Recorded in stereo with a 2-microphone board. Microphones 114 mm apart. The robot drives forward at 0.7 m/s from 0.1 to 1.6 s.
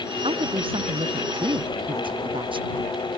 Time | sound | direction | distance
0.2 | a woman speaking | 55° right (ahead or behind) | ?